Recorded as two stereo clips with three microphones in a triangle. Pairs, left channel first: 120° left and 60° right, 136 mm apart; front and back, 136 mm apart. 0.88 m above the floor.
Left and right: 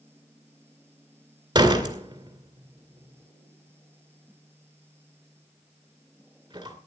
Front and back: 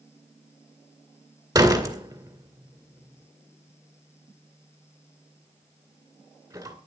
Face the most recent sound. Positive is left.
turn(degrees=-115)